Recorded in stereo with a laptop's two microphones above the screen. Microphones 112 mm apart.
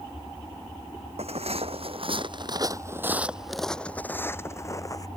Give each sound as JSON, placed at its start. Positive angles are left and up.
{"t": 1.2, "sound": "footsteps", "side_deg": -65}